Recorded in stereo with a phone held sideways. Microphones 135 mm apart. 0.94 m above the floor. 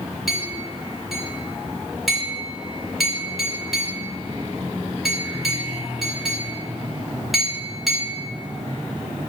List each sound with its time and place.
0.3 s a clink: centre (ahead or behind), 1.7 m